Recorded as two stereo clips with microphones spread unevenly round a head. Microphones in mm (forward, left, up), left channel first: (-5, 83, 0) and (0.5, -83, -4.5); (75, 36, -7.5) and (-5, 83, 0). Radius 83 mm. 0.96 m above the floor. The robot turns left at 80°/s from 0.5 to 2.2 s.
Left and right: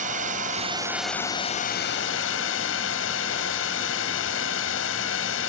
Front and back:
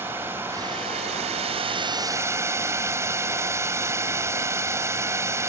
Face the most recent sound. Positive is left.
turn(degrees=90)